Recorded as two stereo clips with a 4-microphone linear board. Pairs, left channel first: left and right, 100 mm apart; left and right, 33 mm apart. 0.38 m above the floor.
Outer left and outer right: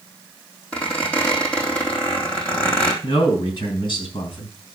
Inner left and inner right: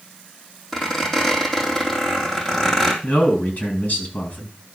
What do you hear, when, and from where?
0.7 s a squeak: 10° left (ahead or behind), 3 m
3.0 s a man speaking: 50° left (ahead or behind), 4.5 m